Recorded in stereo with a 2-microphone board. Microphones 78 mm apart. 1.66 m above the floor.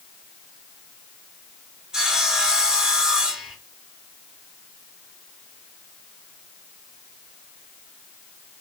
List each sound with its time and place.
1.9 s sawing: 5° right (ahead or behind), 0.7 m